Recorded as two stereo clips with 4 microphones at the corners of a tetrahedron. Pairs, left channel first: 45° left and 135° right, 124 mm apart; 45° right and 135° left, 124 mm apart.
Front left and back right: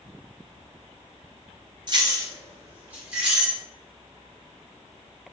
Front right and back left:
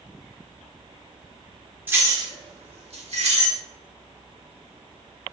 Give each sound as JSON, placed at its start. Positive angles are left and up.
{"t": 1.9, "sound": "keys jangling", "azimuth_deg": -160, "distance_m": 0.6}